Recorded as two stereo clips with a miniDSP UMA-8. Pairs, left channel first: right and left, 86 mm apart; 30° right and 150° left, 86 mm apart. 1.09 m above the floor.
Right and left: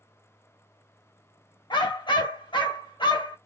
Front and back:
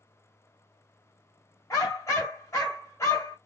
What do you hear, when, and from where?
1.7 s a dog barking: 80° right, 1.9 m